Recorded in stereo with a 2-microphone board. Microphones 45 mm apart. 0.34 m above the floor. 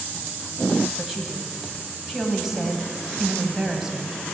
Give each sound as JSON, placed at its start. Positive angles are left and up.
{"t": 1.0, "sound": "a woman speaking", "side_deg": -5, "distance_m": 2.0}